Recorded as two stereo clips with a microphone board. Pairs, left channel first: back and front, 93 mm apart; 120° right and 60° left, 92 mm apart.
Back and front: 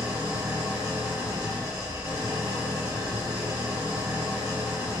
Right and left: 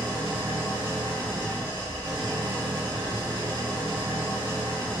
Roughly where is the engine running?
Ahead left.